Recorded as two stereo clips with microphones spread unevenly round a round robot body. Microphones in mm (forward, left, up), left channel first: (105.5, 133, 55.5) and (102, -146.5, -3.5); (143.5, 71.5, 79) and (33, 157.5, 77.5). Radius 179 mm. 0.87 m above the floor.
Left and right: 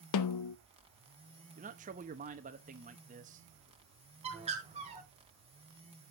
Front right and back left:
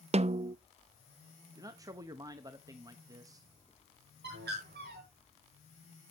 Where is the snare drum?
100° left, 0.6 m.